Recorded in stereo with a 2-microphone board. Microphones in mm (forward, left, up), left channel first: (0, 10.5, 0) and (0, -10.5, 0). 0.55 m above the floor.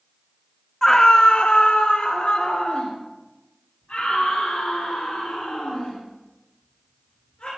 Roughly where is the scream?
Centre.